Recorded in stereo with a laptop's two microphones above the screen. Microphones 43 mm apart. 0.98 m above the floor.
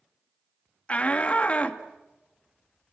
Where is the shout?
30° left (ahead or behind), 1.7 m.